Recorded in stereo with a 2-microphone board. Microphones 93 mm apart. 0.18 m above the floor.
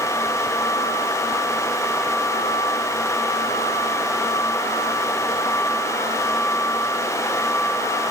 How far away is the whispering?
No whispering in this recording.